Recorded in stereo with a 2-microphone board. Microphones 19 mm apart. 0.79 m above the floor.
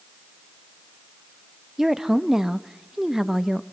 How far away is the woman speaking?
About 0.9 m.